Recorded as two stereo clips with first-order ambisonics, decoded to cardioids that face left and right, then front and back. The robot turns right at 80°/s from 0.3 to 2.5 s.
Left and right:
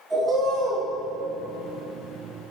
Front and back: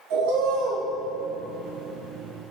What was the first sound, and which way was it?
A bird, 170° right.